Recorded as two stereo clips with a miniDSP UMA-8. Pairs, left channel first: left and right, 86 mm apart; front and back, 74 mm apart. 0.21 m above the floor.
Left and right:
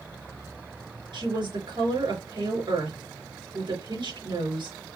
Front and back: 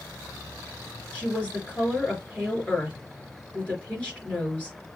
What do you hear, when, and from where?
1.1 s a woman speaking: 75° right, 3.5 m